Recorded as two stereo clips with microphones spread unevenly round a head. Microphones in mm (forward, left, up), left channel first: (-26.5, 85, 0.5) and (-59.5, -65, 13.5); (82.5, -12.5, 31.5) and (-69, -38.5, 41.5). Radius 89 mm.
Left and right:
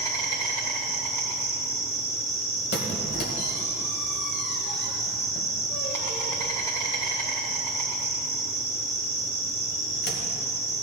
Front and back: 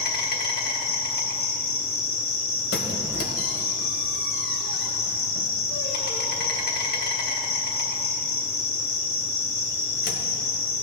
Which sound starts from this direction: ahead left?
A squeak, at 2.7 s.